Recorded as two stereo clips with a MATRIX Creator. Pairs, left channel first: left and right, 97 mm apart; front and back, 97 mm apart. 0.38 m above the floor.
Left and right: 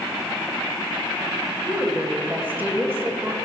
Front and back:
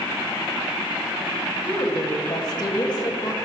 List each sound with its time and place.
1.6 s a woman speaking: 20° right, 2.5 m; by 3.4 s 30° right, 1.8 m